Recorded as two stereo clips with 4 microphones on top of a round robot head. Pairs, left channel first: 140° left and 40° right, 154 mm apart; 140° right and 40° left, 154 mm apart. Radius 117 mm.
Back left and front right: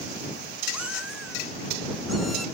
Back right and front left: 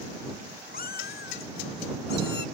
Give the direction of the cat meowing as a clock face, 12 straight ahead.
4 o'clock.